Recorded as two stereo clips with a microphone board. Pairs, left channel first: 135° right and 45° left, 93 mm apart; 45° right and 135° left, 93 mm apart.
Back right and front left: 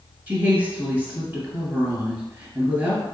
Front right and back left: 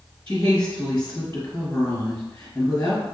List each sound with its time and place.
0.3 s a woman speaking: 10° left, 1.4 m